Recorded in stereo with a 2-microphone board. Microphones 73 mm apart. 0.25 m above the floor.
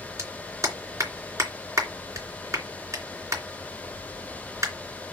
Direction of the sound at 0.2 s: 45° right (ahead or behind).